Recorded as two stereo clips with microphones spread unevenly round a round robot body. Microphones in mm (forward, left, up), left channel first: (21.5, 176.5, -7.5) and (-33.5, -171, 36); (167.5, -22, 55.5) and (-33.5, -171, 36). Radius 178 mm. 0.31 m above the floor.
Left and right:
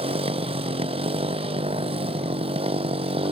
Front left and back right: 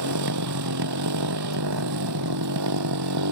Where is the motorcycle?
175° right.